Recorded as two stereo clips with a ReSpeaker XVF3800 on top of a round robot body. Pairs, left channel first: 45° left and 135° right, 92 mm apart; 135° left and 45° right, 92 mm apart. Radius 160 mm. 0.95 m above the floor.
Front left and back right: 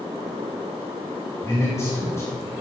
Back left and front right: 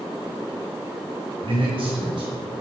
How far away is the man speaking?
About 4.5 m.